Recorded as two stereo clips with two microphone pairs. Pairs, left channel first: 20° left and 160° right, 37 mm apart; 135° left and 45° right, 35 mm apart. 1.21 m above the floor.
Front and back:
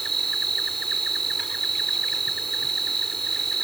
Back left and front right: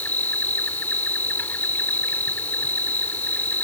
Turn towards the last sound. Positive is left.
turn(degrees=105)